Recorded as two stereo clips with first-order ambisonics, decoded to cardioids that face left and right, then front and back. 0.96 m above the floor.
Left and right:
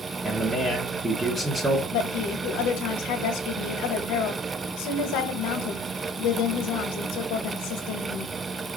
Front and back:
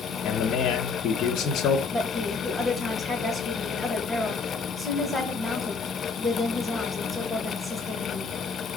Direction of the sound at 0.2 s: 15° right.